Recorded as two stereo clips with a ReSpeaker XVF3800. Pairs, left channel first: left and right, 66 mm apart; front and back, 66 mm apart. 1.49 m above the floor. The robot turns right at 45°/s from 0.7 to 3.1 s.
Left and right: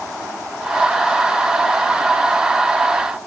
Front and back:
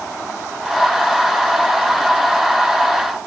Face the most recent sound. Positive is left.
No sound to turn to.